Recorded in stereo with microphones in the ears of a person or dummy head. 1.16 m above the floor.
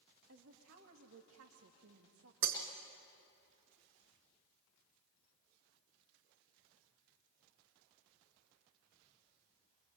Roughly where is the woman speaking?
Right.